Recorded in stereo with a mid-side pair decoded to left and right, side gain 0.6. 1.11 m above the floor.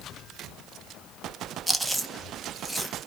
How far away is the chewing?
About 0.6 m.